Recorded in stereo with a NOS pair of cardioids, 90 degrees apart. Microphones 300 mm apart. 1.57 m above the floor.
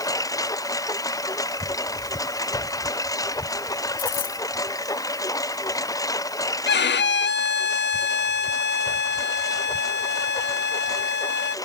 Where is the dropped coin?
65° left.